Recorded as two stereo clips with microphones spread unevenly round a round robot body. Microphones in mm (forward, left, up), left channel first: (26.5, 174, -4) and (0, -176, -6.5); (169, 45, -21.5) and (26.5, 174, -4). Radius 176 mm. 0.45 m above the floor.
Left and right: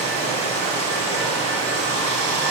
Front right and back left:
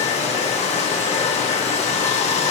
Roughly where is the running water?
Ahead.